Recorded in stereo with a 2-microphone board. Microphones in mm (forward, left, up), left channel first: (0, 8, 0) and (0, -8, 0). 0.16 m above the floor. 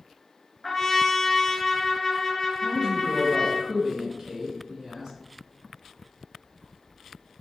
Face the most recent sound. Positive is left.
turn(degrees=-40)  # may be behind; listen again after turning